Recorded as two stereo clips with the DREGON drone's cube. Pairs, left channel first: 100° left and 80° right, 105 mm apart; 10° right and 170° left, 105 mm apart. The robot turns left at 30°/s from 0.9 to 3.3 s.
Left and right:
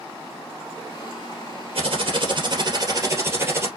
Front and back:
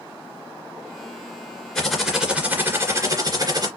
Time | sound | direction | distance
1.8 | typing on a keyboard | 95° right | 2.5 m